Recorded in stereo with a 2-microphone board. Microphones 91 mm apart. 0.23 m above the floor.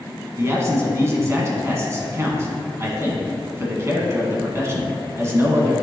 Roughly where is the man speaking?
Right.